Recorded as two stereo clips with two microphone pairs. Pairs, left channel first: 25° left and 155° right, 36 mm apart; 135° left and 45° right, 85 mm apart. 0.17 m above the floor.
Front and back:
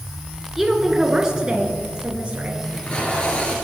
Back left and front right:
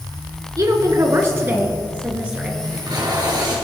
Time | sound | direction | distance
0.6 | a woman speaking | 75° right | 2.0 m
2.6 | tape being pulled | 30° right | 3.5 m